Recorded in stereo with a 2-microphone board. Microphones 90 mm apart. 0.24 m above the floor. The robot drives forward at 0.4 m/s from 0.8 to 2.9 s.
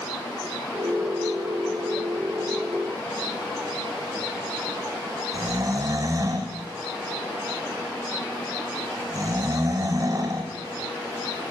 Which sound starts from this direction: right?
Snoring, at 5.3 s.